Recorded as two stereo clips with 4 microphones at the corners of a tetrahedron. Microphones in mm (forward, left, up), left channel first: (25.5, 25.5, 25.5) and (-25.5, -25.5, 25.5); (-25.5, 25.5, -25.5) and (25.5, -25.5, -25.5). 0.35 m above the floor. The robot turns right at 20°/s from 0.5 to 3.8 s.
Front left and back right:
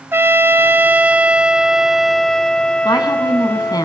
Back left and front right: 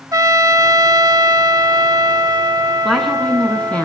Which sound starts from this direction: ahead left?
A woman speaking, at 2.9 s.